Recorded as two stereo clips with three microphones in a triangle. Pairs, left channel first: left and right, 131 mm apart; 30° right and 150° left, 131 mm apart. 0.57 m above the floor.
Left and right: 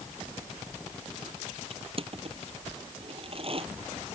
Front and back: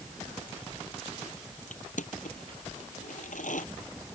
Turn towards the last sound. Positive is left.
turn(degrees=-45)